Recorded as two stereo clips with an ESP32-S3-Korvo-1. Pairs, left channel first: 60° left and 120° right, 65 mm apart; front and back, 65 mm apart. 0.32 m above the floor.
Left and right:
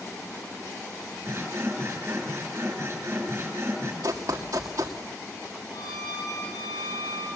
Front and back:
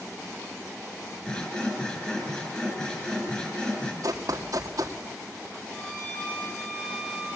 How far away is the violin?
About 8 m.